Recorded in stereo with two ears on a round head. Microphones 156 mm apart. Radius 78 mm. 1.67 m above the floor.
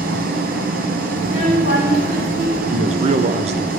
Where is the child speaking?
50° right (ahead or behind), 2.5 m.